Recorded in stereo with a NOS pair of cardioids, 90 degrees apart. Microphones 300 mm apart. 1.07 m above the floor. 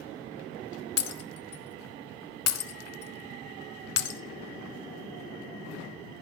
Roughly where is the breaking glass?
Ahead left.